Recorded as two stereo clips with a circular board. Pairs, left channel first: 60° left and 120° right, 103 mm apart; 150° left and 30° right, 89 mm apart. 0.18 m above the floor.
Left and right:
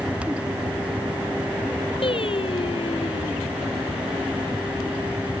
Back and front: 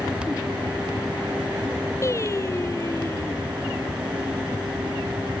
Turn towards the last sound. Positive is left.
turn(degrees=95)